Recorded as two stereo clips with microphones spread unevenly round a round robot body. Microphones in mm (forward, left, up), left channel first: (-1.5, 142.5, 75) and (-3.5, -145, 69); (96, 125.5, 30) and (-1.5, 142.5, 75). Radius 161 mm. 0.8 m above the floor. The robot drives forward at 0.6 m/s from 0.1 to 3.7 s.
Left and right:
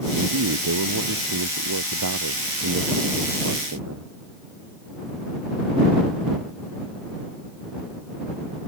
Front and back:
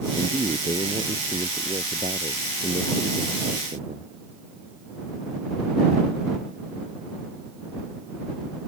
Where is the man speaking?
125° right; by 4.1 s 130° right.